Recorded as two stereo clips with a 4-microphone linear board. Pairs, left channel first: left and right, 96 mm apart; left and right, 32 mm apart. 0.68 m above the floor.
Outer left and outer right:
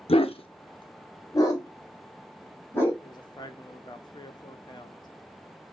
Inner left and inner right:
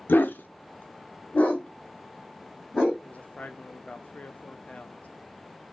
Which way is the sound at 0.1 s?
90° left.